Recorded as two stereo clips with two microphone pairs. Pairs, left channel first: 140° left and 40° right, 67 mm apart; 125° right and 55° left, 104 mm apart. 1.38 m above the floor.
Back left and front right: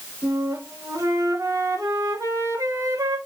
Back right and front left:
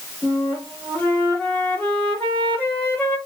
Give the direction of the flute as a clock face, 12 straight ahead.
2 o'clock.